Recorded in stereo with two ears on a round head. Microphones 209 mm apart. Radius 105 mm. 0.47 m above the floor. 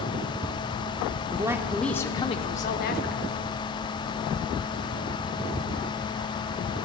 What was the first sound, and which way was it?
A man speaking, 20° right (ahead or behind).